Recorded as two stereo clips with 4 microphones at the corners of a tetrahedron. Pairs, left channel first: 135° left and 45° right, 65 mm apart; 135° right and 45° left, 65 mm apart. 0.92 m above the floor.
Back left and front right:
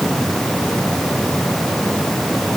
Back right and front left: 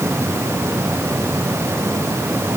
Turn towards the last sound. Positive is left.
No sound to turn to.